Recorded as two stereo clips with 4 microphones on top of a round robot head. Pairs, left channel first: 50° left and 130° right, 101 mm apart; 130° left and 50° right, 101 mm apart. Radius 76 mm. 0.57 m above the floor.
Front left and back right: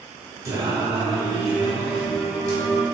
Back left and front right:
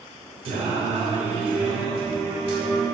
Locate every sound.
0.5 s singing: 75° right, 2 m